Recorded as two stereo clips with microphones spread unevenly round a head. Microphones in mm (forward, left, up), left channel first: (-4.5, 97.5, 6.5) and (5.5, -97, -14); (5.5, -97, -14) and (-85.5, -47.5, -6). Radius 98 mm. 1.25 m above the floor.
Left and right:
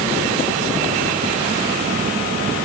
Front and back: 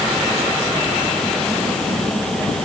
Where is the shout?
No shout in this recording.